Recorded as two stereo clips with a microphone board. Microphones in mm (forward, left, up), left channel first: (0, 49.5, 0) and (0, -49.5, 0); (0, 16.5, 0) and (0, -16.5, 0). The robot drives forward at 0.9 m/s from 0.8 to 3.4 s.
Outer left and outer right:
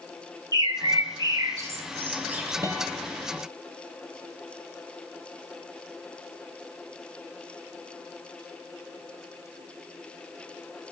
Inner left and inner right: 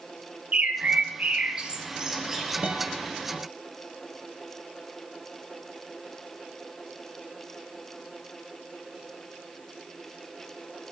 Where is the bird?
40° right (ahead or behind), 0.6 m; by 2.5 s 15° right (ahead or behind), 1.5 m.